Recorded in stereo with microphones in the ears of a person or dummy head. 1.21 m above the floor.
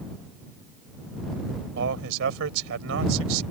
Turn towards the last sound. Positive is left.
turn(degrees=-85)